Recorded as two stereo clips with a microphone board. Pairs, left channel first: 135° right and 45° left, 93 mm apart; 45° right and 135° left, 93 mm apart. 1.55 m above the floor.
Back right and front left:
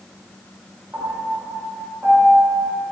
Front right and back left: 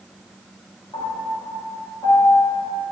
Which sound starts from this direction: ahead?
A piano, at 0.9 s.